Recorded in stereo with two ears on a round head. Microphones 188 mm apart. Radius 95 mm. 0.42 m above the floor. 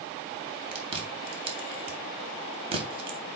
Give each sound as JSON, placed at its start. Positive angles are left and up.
{"t": 0.7, "sound": "chewing", "side_deg": -30, "distance_m": 2.5}